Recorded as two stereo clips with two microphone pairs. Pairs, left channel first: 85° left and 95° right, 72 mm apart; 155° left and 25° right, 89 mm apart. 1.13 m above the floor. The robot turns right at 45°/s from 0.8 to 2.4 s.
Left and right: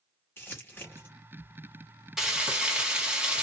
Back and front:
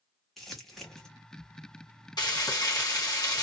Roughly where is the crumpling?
Left.